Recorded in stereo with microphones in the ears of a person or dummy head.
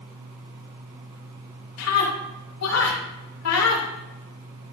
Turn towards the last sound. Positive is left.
turn(degrees=85)